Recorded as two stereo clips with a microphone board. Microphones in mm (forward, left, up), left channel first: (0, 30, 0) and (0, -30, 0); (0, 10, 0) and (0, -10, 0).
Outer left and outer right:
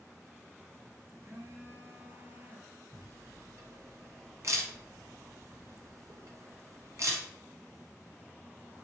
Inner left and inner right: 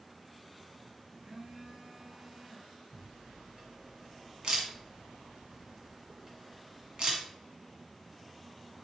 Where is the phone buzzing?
45° right (ahead or behind), 1.2 m.